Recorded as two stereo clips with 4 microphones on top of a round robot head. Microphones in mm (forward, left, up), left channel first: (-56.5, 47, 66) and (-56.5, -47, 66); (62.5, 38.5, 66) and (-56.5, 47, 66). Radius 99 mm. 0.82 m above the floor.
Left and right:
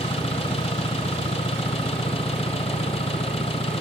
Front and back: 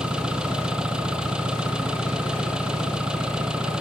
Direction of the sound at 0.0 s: 95° left.